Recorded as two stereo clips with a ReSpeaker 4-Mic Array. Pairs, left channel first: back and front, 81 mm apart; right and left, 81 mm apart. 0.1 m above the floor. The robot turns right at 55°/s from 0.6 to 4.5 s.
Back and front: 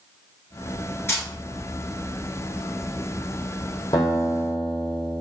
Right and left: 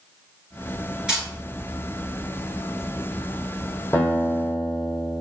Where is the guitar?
150° right, 1.2 m; by 5.2 s 120° right, 1.2 m.